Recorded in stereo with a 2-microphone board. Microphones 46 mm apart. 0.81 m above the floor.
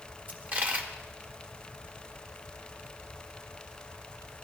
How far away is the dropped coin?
About 1.2 m.